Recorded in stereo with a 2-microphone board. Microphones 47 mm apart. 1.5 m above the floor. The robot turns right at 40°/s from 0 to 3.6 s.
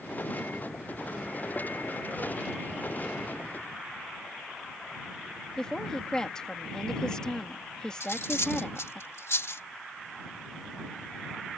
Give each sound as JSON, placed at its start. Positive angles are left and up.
{"t": 5.6, "sound": "a woman speaking", "side_deg": 20}
{"t": 8.0, "sound": "cutlery clinking", "side_deg": 70}